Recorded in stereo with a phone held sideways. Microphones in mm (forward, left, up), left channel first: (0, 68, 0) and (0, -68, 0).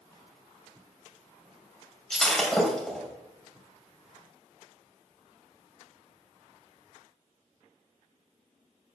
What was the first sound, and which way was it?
Breaking glass, centre (ahead or behind).